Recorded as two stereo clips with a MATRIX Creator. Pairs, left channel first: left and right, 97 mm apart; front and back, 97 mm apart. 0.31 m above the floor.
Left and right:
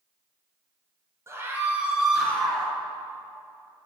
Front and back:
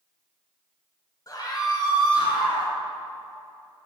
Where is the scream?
40° right, 1.5 m; by 2.7 s 15° left, 1.7 m.